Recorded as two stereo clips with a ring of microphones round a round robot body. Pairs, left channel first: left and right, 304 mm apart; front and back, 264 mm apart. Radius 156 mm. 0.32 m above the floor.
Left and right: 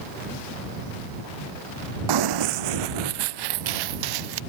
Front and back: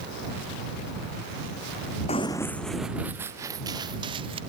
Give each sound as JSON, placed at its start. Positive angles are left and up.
{"t": 2.1, "sound": "running footsteps", "azimuth_deg": -70}